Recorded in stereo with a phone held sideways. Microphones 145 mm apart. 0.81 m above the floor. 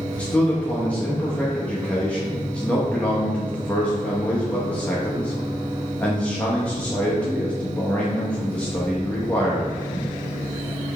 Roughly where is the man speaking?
Centre.